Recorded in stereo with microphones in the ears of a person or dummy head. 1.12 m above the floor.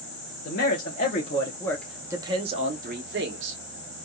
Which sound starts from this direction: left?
A man speaking, at 0.5 s.